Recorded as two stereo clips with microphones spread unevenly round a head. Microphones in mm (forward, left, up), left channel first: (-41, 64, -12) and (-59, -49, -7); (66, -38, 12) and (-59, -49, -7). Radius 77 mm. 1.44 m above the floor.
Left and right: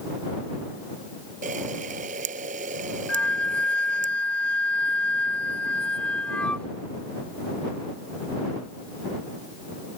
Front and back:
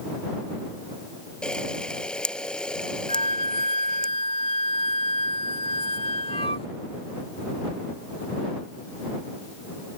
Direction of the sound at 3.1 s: Straight ahead.